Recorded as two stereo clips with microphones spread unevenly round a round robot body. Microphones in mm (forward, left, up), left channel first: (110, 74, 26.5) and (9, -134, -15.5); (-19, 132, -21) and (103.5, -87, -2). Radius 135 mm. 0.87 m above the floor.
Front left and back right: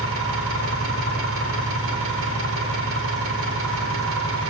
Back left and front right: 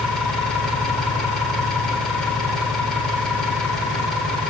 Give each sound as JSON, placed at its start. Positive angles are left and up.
{"t": 0.0, "sound": "an engine running", "azimuth_deg": -150, "distance_m": 3.0}